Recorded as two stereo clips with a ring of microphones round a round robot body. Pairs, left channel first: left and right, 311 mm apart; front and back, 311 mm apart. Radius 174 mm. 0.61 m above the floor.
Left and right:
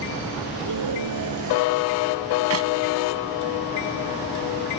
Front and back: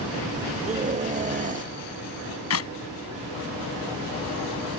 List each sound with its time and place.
0.7 s a scream: 115° right
2.5 s a clap: 40° right